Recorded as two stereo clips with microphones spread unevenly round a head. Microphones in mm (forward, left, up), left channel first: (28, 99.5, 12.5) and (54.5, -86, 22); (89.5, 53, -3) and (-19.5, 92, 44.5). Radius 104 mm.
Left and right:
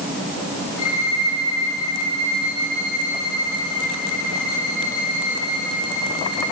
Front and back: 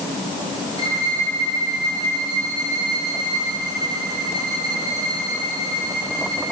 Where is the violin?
110° left, 9.5 m.